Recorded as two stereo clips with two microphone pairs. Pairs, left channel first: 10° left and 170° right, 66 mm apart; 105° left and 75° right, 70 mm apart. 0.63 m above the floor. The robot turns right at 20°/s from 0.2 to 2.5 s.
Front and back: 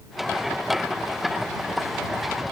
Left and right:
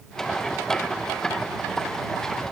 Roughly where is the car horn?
I don't hear a car horn.